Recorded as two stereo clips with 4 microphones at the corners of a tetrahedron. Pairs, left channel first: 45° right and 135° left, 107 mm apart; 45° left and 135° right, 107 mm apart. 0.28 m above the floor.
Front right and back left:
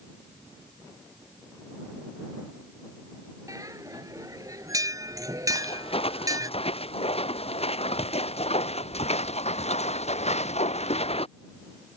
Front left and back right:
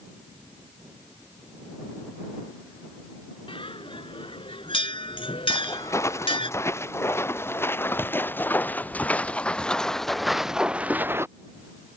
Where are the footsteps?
20° right; by 11.3 s 70° right.